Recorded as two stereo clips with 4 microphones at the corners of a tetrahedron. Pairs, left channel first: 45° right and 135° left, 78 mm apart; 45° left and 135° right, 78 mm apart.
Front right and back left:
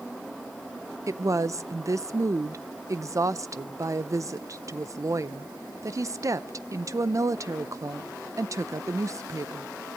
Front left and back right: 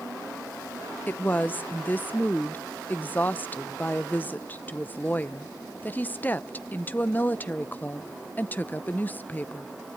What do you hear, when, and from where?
1.1 s a woman speaking: 105° left, 0.6 m